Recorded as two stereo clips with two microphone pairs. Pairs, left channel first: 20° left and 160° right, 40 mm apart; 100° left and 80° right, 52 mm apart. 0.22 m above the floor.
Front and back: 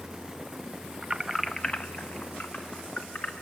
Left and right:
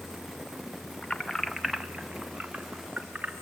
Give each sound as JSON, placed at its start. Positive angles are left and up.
{"t": 1.0, "sound": "keys jangling", "azimuth_deg": 155, "distance_m": 0.7}